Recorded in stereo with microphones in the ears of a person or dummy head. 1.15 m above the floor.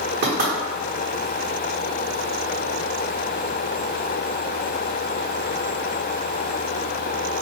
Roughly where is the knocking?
Right.